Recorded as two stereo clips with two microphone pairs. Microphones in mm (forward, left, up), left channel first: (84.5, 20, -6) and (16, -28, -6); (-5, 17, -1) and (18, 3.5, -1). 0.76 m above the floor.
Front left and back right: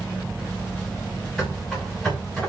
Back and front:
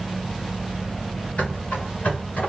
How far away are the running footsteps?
About 8 m.